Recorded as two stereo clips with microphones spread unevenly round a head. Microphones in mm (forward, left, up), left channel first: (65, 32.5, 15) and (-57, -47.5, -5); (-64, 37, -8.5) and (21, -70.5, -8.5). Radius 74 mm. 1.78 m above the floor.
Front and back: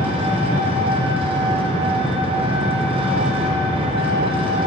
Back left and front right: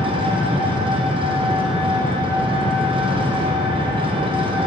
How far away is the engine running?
About 1.1 m.